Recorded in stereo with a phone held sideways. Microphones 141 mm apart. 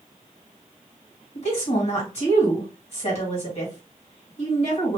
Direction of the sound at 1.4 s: 55° left (ahead or behind).